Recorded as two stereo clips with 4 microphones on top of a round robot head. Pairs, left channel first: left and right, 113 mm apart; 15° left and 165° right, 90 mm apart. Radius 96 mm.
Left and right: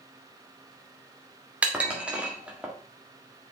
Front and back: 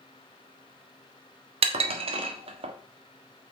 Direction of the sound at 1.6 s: 170° right.